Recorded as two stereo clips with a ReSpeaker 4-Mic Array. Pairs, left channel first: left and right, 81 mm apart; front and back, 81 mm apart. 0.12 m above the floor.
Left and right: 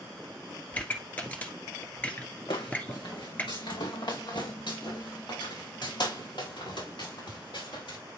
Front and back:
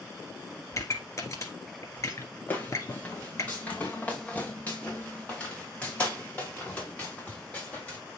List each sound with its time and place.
0.7 s a pop: 25° left, 1.6 m
2.5 s footsteps: 70° left, 3 m; by 8.0 s 75° left, 6 m